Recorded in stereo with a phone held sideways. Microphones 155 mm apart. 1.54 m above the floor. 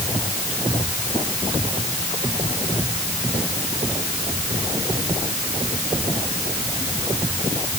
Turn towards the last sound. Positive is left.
No sound to turn to.